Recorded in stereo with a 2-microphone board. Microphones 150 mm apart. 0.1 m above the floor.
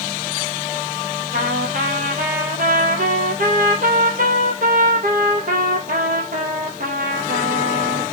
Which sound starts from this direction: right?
A trumpet, at 1.3 s.